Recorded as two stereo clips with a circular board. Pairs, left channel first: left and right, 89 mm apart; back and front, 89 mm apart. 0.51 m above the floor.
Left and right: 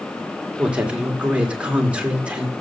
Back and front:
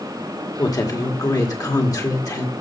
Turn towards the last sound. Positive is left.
turn(degrees=-160)